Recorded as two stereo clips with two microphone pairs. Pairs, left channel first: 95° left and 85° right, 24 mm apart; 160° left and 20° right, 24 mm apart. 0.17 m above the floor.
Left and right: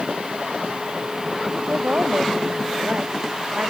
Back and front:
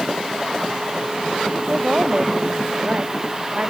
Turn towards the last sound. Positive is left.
turn(degrees=-60)